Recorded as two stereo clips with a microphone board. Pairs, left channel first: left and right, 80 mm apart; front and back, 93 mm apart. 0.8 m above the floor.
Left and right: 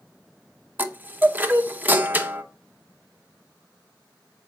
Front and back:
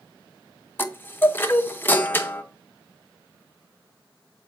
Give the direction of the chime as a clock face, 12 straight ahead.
1 o'clock.